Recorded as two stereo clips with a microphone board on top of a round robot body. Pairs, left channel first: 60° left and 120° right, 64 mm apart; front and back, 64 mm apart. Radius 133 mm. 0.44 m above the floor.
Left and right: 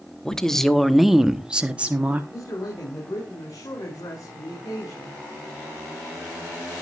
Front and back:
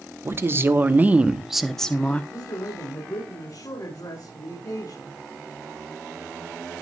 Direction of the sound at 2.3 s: 25° left.